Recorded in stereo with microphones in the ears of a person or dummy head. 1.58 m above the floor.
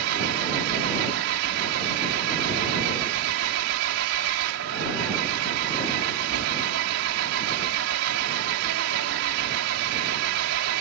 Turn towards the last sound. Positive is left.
turn(degrees=-75)  # may be behind; listen again after turning